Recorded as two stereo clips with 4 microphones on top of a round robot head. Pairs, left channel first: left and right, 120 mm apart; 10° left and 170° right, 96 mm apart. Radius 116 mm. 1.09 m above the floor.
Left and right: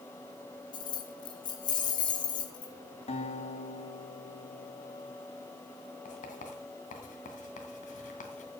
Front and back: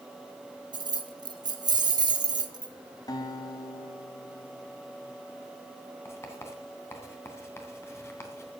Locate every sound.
0.7 s keys jangling: 145° left, 1.3 m
3.1 s a guitar: 60° left, 2.5 m
6.0 s writing: 75° left, 2.5 m